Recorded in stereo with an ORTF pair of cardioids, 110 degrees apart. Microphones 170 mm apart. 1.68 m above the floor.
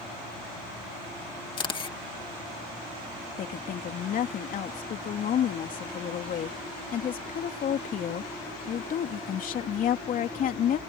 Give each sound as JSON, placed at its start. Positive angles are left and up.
{"t": 1.6, "sound": "a camera shutter", "azimuth_deg": 30}
{"t": 3.4, "sound": "a woman speaking", "azimuth_deg": 55}